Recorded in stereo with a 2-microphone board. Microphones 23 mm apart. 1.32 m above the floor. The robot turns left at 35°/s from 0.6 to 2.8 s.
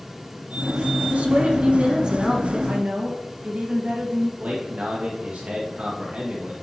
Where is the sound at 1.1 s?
105° right, 1.7 m; by 2.6 s 155° right, 1.7 m.